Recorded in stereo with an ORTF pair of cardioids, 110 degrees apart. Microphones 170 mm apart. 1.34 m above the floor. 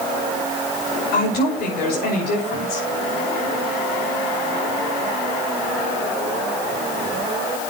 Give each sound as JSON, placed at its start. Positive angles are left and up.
{"t": 1.1, "sound": "a woman speaking", "azimuth_deg": 70, "distance_m": 8.0}